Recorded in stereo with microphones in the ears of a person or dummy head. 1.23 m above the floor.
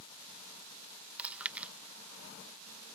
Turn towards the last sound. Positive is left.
turn(degrees=-10)  # may be behind; listen again after turning